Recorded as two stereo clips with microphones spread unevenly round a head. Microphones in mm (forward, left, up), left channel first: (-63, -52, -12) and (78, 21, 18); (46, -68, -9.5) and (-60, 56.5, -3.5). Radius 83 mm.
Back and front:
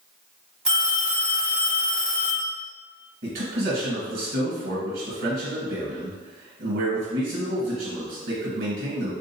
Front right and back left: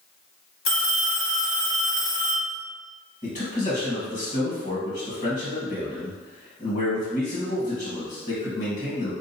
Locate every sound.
0.7 s a phone ringing: 55° right, 1.8 m
3.2 s a man speaking: straight ahead, 1.5 m